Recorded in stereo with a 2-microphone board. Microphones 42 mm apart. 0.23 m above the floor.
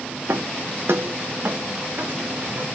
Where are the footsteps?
80° right, 1.6 m; by 2.7 s 45° right (ahead or behind), 3 m.